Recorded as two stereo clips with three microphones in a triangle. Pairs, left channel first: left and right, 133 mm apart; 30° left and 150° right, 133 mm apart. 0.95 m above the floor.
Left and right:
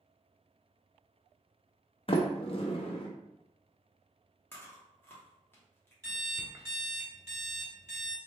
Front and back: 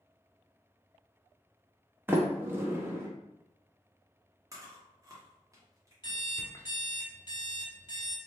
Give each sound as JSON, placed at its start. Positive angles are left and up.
{"t": 2.1, "sound": "a sliding door", "azimuth_deg": 140, "distance_m": 0.6}
{"t": 4.5, "sound": "chewing", "azimuth_deg": 155, "distance_m": 1.1}
{"t": 6.0, "sound": "an alarm clock", "azimuth_deg": -25, "distance_m": 1.0}